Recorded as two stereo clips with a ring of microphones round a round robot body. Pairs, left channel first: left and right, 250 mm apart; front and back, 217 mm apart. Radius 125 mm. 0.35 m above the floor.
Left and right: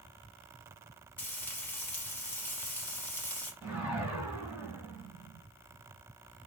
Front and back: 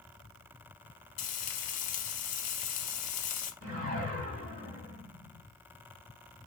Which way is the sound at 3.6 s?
170° right.